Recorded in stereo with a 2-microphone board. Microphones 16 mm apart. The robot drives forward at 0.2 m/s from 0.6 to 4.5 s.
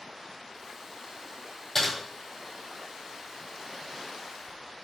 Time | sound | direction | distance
1.8 | typing on a keyboard | 15° left (ahead or behind) | 1.8 m